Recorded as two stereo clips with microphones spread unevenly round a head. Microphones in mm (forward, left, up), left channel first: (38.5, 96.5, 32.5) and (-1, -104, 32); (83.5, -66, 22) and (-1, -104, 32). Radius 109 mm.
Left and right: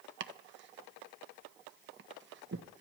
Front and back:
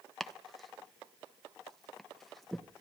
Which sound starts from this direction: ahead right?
Chopping, at 0.2 s.